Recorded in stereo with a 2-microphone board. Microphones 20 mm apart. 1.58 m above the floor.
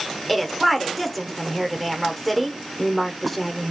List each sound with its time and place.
0.3 s a woman speaking: 5° left (ahead or behind), 1.0 m